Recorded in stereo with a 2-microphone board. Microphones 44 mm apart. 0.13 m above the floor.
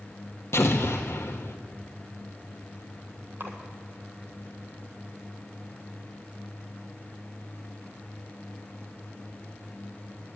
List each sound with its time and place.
0.5 s an explosion: 75° left (ahead or behind), 1.1 m
3.4 s a splash: 55° right (ahead or behind), 1.5 m